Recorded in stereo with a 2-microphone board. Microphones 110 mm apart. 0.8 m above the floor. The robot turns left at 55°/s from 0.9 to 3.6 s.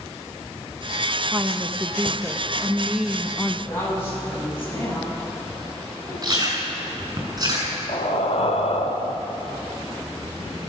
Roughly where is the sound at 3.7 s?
Left.